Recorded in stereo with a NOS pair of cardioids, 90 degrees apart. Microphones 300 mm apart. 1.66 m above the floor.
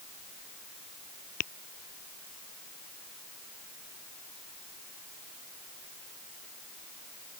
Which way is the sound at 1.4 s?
55° left.